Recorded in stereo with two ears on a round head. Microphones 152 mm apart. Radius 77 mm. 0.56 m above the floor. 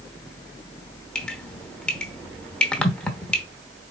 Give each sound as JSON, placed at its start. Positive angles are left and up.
{"t": 1.1, "sound": "dripping", "side_deg": 5, "distance_m": 0.8}